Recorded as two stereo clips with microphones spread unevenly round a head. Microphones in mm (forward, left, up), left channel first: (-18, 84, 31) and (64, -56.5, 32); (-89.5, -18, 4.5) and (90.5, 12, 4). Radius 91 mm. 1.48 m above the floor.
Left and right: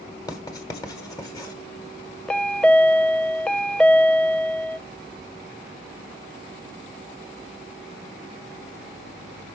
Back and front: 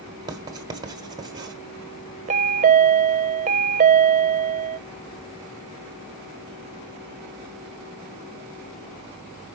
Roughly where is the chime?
Ahead left.